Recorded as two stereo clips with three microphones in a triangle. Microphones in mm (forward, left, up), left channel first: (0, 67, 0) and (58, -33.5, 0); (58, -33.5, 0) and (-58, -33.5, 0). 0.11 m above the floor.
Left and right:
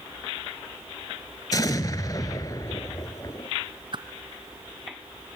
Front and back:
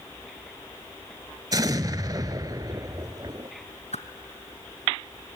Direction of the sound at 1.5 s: 150° left.